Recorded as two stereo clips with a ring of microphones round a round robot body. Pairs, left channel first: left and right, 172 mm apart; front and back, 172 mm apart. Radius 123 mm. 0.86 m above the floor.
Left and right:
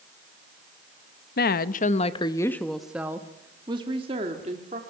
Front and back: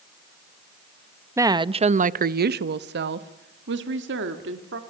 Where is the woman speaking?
105° left, 0.8 m; by 4.8 s 150° right, 2.0 m.